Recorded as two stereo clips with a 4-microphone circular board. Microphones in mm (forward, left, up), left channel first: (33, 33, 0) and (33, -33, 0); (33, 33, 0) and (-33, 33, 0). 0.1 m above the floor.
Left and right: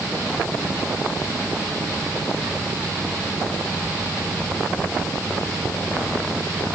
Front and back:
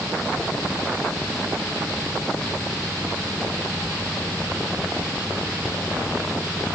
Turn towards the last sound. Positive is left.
No sound to turn to.